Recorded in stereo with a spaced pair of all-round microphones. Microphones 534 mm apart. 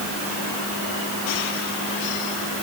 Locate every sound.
Only background noise.